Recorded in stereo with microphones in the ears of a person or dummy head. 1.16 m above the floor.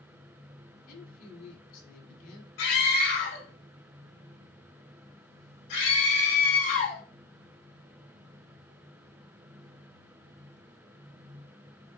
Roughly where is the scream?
Left.